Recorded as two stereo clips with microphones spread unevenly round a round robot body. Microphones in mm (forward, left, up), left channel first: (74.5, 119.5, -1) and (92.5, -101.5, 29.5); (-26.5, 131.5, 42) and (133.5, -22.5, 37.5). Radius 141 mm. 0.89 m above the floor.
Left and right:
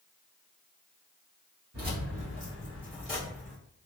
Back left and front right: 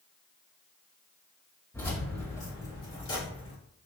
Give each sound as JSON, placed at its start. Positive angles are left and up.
{"t": 1.7, "sound": "keys jangling", "azimuth_deg": -140, "distance_m": 0.9}